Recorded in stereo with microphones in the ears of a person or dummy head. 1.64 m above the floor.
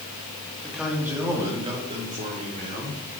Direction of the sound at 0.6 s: Centre (ahead or behind).